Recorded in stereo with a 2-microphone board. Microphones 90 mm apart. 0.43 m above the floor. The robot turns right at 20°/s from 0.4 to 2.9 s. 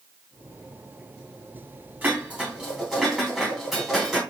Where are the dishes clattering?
20° right (ahead or behind), 2.5 m; by 4.2 s 5° right (ahead or behind), 2.5 m.